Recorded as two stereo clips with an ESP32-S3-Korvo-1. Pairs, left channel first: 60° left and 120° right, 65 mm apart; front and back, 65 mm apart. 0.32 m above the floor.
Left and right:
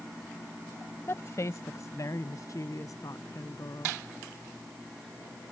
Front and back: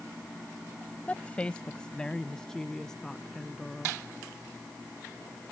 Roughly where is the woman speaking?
Ahead left.